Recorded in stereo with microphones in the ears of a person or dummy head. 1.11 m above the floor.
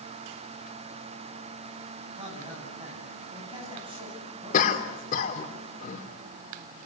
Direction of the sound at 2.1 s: 35° right (ahead or behind).